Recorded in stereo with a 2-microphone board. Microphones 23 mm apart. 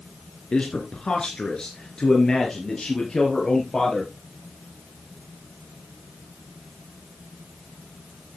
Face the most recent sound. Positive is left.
turn(degrees=25)  # may be behind; listen again after turning